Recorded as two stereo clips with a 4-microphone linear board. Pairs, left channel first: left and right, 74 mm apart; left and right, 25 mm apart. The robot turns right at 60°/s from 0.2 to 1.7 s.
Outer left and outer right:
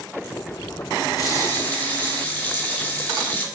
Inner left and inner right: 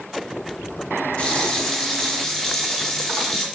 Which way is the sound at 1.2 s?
130° left.